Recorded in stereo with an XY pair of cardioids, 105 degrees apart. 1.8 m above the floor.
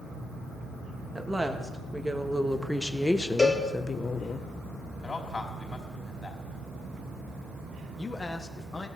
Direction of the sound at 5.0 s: 25° left.